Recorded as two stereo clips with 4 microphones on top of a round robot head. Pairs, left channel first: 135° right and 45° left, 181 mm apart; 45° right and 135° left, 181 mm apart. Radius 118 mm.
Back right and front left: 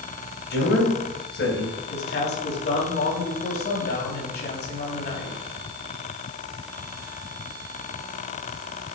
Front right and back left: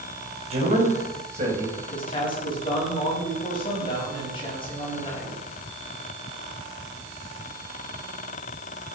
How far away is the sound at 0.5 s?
About 4.5 m.